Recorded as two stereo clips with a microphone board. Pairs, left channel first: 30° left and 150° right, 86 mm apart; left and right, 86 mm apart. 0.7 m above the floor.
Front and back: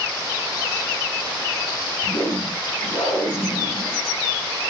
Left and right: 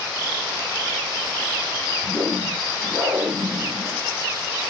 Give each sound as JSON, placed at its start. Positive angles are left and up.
{"t": 2.0, "sound": "a whoosh", "azimuth_deg": -10, "distance_m": 3.5}